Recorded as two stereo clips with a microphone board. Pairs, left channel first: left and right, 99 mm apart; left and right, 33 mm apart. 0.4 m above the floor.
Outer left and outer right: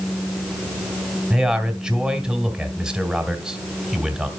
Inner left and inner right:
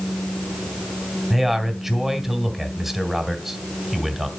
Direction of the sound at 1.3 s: 5° right (ahead or behind).